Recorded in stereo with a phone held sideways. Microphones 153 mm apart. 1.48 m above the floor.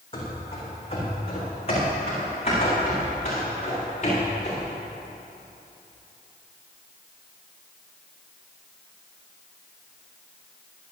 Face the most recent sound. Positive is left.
turn(degrees=45)  # may be behind; listen again after turning